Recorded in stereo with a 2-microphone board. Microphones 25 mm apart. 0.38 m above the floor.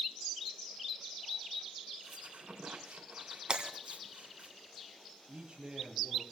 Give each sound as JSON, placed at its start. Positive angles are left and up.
{"t": 2.0, "sound": "a squeak", "side_deg": -75, "distance_m": 3.0}
{"t": 3.5, "sound": "breaking glass", "side_deg": -35, "distance_m": 2.0}
{"t": 5.3, "sound": "a man speaking", "side_deg": -35, "distance_m": 7.5}